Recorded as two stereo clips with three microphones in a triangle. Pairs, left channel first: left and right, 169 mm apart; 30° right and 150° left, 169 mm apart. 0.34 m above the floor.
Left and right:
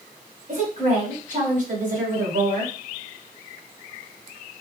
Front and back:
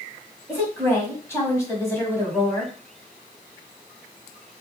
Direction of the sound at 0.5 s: 100° right.